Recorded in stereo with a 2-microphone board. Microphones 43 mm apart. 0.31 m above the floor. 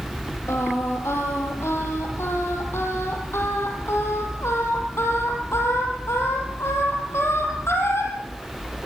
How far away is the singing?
About 5.5 m.